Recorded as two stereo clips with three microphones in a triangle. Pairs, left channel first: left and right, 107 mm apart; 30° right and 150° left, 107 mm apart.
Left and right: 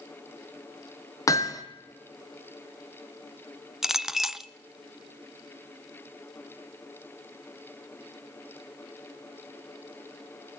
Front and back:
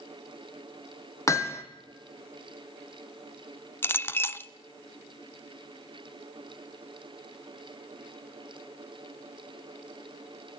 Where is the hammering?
30° left, 2 m.